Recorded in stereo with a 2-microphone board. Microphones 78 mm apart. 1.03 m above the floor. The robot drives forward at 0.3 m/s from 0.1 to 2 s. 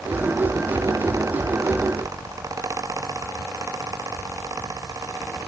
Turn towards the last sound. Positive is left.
No sound to turn to.